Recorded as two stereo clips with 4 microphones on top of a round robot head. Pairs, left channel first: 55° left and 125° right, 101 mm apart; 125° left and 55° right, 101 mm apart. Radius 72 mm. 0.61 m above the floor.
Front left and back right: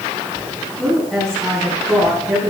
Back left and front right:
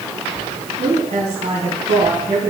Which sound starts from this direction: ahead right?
A woman speaking, at 0.8 s.